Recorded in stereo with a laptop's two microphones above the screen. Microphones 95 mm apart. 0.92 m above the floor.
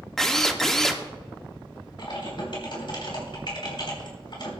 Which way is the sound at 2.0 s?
55° left (ahead or behind).